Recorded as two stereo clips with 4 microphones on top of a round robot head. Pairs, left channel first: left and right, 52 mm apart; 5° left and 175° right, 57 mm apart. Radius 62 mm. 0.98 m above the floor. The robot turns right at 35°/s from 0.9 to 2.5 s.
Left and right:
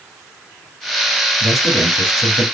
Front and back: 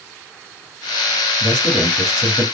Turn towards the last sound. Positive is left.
turn(degrees=130)